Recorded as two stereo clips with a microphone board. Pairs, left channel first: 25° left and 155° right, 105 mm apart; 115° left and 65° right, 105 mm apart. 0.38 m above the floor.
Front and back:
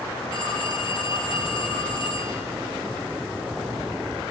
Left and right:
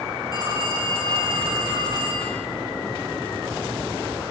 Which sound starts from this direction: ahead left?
A phone ringing, at 0.3 s.